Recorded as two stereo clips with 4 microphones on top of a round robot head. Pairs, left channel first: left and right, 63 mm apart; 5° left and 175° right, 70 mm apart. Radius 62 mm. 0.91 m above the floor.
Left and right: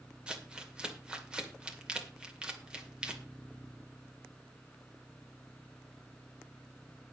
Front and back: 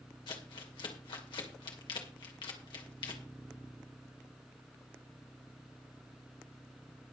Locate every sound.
0.3 s crumpling: 15° right, 2.5 m